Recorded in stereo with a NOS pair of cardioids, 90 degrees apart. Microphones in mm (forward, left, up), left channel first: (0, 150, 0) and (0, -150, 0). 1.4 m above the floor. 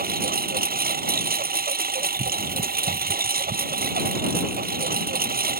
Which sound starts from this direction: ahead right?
A lawn mower, at 0.0 s.